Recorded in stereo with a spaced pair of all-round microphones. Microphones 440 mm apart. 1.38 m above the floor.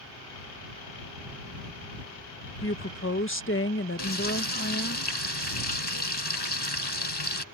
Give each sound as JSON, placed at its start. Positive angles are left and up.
{"t": 2.6, "sound": "a woman speaking", "side_deg": 30}
{"t": 4.0, "sound": "frying", "side_deg": 65}